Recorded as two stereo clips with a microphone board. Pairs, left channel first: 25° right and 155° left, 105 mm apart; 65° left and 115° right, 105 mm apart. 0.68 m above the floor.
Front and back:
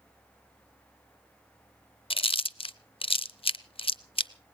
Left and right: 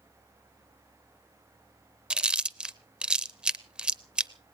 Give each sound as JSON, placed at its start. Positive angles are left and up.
{"t": 2.1, "sound": "chewing", "azimuth_deg": -35, "distance_m": 0.6}